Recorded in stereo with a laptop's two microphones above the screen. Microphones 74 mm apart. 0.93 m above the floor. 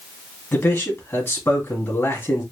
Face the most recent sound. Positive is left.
turn(degrees=35)  # may be behind; listen again after turning